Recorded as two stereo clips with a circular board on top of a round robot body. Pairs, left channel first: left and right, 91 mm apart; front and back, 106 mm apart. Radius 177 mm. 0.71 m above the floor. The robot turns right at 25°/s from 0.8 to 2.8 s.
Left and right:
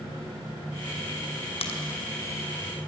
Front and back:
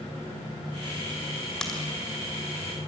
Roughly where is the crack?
Left.